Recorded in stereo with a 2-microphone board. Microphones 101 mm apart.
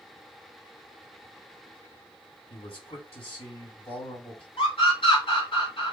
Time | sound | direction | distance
2.5 | a man speaking | 70° left (ahead or behind) | 4 m
4.6 | a scream | 60° left (ahead or behind) | 2 m